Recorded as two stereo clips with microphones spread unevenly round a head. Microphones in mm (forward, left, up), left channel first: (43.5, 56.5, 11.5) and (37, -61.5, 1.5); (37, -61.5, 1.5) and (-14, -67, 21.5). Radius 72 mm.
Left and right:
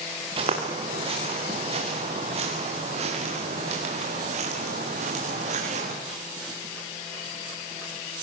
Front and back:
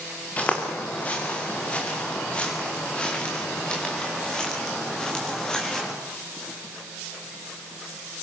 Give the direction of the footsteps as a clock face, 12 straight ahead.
2 o'clock.